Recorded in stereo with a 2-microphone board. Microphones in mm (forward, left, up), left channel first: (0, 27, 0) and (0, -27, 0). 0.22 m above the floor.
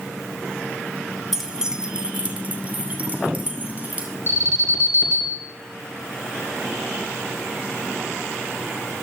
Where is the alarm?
50° right (ahead or behind), 3 m.